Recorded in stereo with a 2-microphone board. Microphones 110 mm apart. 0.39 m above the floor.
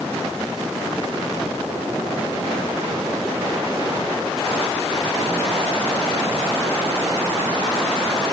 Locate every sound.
Only background noise.